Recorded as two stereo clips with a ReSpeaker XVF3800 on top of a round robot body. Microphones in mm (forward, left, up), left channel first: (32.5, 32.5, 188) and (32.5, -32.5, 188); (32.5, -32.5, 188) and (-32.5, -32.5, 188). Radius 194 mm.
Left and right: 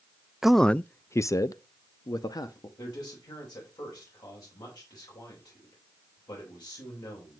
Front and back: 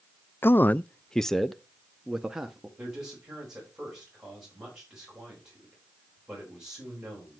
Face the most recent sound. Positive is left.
turn(degrees=100)